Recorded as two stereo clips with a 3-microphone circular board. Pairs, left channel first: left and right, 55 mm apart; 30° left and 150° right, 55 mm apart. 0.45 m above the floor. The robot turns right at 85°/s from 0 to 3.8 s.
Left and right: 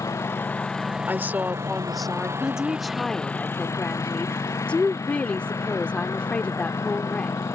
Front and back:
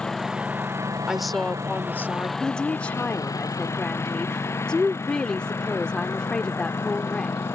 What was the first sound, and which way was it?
A lawn mower, 105° left.